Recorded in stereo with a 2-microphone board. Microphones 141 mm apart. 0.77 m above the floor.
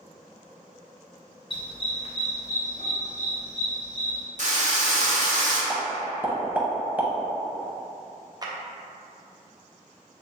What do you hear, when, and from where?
1.5 s a dog barking: 35° left (ahead or behind), 0.5 m; by 4.2 s 45° left (ahead or behind), 1.5 m
4.4 s a drill: 55° right (ahead or behind), 0.7 m
5.7 s a pop: 10° right (ahead or behind), 0.6 m
8.4 s a clap: 25° right (ahead or behind), 0.5 m